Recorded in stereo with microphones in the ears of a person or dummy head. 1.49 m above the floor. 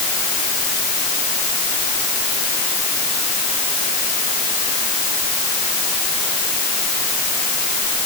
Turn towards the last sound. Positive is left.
No sound to turn to.